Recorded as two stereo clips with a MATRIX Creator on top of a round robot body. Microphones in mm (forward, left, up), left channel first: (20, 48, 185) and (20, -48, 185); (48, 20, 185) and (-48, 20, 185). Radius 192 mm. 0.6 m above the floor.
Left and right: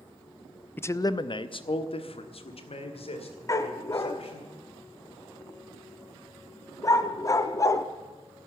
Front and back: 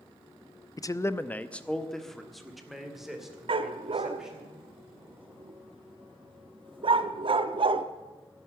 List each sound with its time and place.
0.8 s a man speaking: 30° left, 0.7 m; by 4.5 s 95° left, 3.5 m
3.5 s a dog barking: 150° left, 0.6 m